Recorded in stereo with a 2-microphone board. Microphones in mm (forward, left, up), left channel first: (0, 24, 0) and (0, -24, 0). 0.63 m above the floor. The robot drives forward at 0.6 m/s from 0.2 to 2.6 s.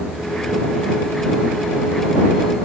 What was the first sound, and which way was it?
Only background noise.